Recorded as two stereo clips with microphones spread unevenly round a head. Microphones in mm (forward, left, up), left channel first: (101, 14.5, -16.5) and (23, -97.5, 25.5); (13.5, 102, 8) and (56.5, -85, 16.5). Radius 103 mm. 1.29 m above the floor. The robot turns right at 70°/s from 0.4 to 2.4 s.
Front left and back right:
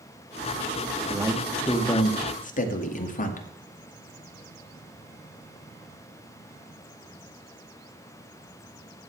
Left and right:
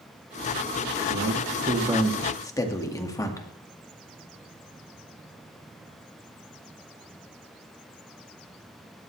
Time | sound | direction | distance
1.1 | a man speaking | 60° right | 2 m